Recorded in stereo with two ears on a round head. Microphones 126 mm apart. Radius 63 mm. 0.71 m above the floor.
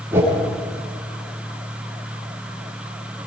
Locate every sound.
0.1 s a whoosh: 15° right (ahead or behind), 6 m